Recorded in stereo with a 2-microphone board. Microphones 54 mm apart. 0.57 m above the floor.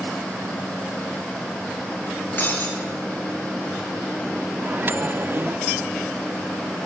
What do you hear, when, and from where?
2.4 s breaking glass: 35° left (ahead or behind), 5.5 m
4.6 s a microwave: 40° right (ahead or behind), 0.6 m